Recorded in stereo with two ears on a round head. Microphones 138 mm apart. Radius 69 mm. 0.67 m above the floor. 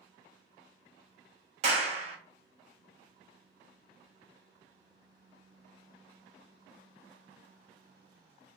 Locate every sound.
1.6 s a clap: 40° right (ahead or behind), 0.8 m